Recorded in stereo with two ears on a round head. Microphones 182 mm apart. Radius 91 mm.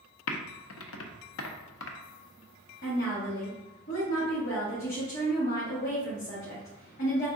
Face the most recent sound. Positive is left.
turn(degrees=50)  # may be behind; listen again after turning